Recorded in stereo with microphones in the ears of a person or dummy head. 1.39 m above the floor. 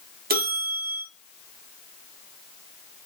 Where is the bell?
50° right (ahead or behind), 0.7 m.